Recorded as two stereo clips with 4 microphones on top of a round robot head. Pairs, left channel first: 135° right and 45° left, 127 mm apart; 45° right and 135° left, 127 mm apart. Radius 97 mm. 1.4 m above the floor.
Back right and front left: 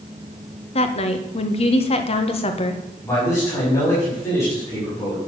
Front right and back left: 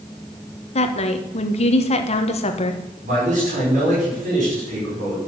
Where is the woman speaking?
90° right, 1.4 m.